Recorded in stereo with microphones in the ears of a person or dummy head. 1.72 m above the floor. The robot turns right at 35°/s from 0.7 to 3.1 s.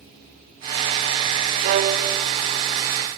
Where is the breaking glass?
I don't hear breaking glass.